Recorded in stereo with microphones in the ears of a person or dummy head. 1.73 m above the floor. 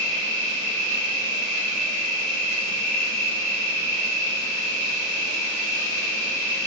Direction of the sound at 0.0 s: 15° left (ahead or behind).